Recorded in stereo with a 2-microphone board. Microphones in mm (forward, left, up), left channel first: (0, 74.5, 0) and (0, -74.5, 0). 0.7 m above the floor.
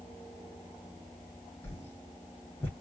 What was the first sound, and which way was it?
A whoosh, 15° left (ahead or behind).